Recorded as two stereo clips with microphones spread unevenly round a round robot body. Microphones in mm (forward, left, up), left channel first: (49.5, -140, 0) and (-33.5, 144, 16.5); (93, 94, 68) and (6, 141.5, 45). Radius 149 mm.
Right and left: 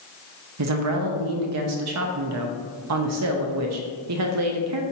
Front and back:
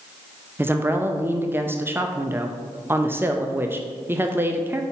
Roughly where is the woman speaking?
Left.